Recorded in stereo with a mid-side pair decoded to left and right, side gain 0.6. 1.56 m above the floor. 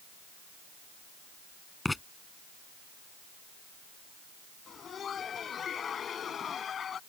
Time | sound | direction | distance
1.9 | writing | 10° left | ?
4.7 | laughter | 40° left | ?